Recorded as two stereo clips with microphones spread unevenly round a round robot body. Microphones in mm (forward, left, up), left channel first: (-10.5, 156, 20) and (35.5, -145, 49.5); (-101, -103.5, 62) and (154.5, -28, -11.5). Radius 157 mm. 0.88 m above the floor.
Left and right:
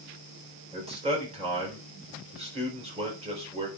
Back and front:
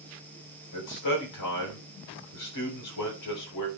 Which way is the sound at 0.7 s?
155° right.